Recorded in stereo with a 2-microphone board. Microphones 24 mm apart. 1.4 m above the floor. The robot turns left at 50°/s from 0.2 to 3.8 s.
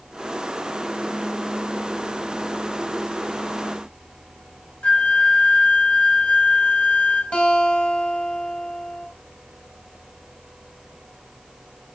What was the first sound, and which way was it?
A flute, 60° left (ahead or behind).